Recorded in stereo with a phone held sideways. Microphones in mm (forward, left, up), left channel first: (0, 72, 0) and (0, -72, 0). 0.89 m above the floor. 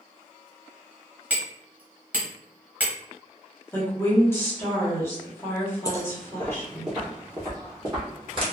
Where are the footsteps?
25° left (ahead or behind), 1.0 m; by 8.4 s 35° right (ahead or behind), 1.4 m.